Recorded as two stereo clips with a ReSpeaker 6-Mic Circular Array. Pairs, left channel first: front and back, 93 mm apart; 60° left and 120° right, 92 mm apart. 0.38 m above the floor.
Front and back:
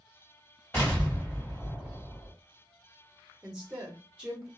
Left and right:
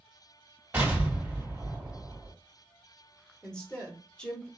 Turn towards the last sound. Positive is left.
turn(degrees=125)